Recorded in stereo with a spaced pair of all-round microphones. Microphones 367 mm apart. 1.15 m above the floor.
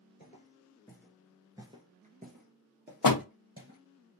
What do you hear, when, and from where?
0.2 s footsteps: 20° left (ahead or behind), 1.3 m; by 3.8 s 35° right (ahead or behind), 2.5 m
3.0 s a door slam: 65° left (ahead or behind), 0.6 m